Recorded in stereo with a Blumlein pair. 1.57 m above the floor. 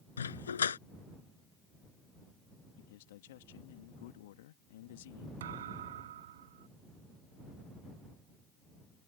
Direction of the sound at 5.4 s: 60° right.